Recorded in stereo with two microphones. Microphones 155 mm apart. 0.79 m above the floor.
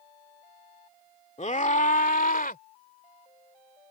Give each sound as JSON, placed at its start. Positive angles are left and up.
{"t": 1.4, "sound": "a scream", "side_deg": 45}